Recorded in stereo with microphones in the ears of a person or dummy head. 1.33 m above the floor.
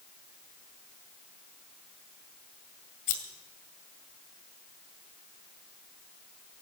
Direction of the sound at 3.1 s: 50° left (ahead or behind).